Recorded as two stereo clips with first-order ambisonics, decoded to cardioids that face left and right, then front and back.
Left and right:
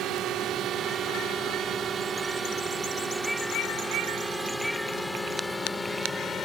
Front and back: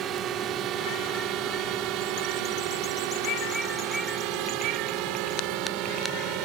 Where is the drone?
130° right; by 6.5 s 165° left.